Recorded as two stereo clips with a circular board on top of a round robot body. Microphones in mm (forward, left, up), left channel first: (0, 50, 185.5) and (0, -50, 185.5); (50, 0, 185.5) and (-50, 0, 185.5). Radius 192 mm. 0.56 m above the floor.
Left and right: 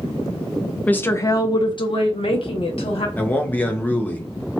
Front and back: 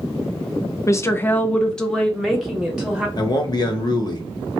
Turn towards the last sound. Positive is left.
turn(degrees=25)